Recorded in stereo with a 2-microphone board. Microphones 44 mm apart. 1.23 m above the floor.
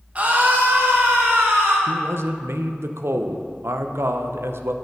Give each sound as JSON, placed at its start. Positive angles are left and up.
{"t": 0.1, "sound": "a scream", "side_deg": -30, "distance_m": 1.3}
{"t": 1.9, "sound": "a man speaking", "side_deg": -75, "distance_m": 0.6}